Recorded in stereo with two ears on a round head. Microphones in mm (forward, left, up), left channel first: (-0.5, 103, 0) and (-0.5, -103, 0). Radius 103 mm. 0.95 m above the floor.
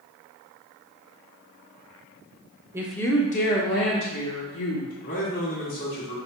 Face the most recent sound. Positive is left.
turn(degrees=55)  # may be behind; listen again after turning